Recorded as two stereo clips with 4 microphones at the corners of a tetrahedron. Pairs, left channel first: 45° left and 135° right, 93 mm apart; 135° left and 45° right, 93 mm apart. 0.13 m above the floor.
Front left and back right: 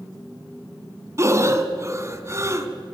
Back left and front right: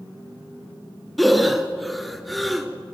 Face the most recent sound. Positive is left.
turn(degrees=-135)